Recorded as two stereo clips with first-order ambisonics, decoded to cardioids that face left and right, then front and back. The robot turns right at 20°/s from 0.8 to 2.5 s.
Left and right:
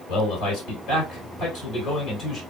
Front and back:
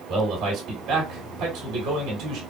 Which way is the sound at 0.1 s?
130° left.